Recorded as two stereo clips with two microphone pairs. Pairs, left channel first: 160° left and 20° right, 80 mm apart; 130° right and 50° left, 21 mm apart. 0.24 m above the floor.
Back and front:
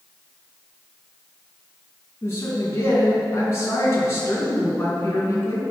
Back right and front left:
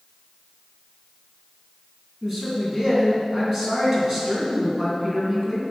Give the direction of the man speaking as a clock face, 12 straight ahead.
8 o'clock.